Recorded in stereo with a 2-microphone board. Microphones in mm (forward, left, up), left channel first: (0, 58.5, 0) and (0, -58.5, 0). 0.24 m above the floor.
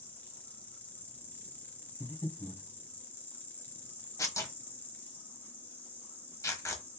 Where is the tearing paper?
25° left (ahead or behind), 1.2 m.